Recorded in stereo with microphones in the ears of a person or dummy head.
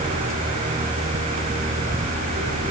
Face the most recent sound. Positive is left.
No sound to turn to.